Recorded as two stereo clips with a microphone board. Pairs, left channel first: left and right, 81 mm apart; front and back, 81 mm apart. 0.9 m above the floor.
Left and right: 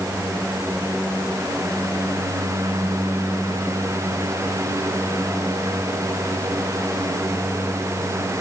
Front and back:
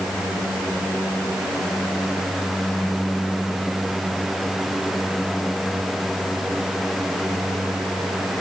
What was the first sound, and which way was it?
Only background noise.